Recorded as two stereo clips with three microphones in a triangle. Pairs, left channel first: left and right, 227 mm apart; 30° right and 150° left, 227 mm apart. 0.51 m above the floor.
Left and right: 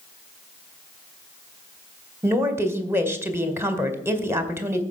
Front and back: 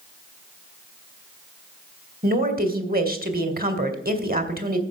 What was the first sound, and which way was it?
A woman speaking, 165° right.